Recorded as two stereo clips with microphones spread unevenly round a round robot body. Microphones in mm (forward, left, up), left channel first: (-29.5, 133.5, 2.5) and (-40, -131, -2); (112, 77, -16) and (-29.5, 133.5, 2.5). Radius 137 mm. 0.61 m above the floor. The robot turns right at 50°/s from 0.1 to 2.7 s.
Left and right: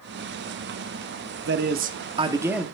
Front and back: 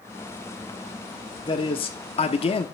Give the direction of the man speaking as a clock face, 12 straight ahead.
2 o'clock.